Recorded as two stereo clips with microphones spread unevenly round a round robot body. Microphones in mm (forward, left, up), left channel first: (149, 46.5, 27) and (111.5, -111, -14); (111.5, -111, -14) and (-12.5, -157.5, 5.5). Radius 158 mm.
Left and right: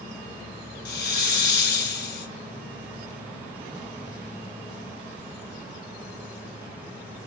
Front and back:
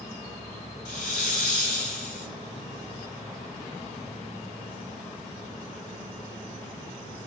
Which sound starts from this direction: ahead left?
A hiss, at 0.8 s.